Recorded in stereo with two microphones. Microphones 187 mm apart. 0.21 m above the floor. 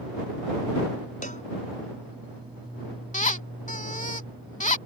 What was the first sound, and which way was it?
A cowbell, 45° left (ahead or behind).